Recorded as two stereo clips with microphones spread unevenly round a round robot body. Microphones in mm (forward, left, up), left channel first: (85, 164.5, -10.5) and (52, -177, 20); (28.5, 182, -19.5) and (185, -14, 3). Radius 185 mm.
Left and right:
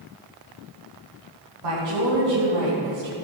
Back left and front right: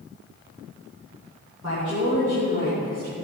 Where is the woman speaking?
125° right, 3.5 m; by 3.1 s 100° right, 3 m.